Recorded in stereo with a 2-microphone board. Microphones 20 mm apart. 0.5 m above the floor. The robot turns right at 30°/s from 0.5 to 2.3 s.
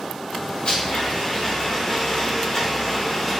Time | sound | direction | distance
0.7 | a blender | 110° left | 2.5 m